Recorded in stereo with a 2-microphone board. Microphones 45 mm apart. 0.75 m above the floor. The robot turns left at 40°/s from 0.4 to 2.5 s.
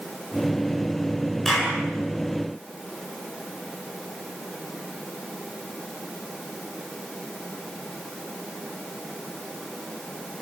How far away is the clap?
About 8.5 m.